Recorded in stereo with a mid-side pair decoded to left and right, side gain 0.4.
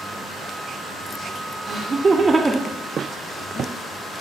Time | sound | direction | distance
1.6 | laughter | 55° right | 0.7 m